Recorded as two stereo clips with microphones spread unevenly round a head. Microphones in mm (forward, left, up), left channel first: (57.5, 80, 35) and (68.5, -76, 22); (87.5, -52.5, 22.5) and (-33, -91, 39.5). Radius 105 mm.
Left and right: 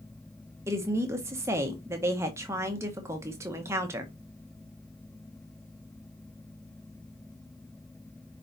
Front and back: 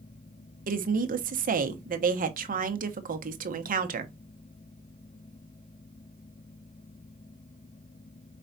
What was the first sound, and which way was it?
A woman speaking, 160° right.